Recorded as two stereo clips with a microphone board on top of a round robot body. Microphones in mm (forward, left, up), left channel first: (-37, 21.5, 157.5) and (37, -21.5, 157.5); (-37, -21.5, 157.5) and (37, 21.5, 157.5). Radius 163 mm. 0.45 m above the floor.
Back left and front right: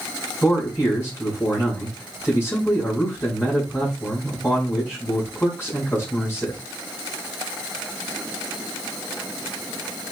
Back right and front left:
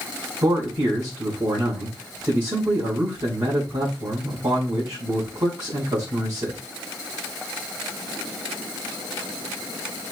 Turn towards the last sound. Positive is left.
turn(degrees=80)